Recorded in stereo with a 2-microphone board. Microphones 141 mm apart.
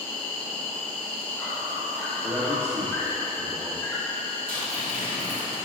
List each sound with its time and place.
0.0 s an insect: 10° left (ahead or behind), 3 m
2.2 s a man speaking: 40° right (ahead or behind), 2 m
4.5 s tearing paper: 85° right, 2.5 m